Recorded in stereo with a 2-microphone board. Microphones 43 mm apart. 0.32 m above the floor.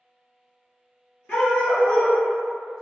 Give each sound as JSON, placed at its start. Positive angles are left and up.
{"t": 1.3, "sound": "a dog barking", "side_deg": 20, "distance_m": 1.6}